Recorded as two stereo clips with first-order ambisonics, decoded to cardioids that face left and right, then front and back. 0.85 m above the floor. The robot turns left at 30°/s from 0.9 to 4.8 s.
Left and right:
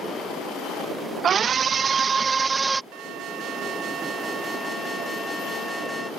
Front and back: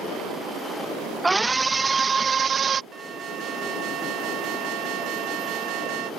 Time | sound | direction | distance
1.2 | a scream | 105° right | ?
2.9 | an alarm | 115° right | ?